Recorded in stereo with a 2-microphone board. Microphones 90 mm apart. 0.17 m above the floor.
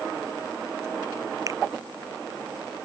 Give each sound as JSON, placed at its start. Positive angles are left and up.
{"t": 1.5, "sound": "a finger snap", "side_deg": -35}